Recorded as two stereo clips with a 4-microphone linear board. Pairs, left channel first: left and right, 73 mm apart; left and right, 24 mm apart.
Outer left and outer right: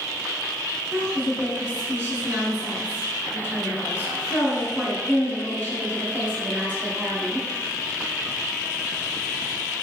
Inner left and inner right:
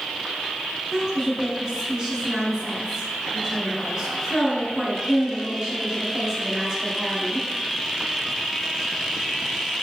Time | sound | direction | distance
0.9 | a woman speaking | 30° right (ahead or behind) | 1.7 m